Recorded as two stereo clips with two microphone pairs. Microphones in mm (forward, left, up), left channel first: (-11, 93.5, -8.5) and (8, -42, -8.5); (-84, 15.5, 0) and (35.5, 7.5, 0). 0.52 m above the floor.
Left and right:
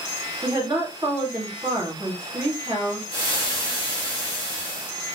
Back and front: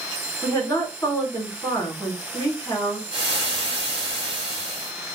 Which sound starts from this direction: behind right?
A woman speaking, at 0.4 s.